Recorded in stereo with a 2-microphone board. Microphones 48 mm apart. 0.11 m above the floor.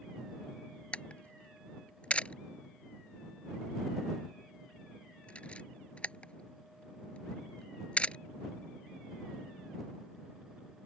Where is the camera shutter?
25° left (ahead or behind).